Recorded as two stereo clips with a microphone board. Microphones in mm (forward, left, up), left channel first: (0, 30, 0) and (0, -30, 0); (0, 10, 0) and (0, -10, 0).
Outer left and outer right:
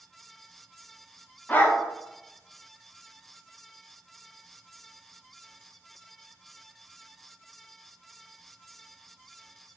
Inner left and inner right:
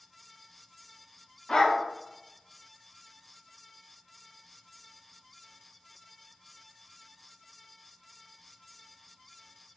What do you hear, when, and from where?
1.5 s a dog barking: 30° left (ahead or behind), 0.6 m